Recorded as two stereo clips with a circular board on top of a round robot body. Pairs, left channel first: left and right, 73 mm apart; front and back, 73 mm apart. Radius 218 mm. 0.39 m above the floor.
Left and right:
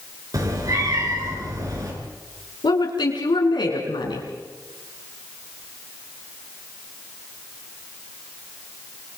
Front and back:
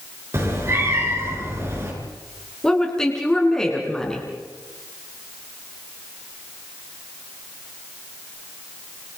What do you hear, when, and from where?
0.3 s a cat meowing: 130° right, 4.5 m
2.6 s a woman speaking: 80° left, 5.5 m